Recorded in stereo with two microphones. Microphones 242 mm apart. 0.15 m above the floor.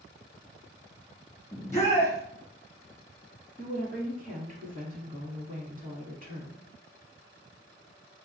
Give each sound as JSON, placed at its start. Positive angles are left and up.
{"t": 1.5, "sound": "a shout", "side_deg": 15, "distance_m": 1.7}
{"t": 3.6, "sound": "a woman speaking", "side_deg": -35, "distance_m": 1.2}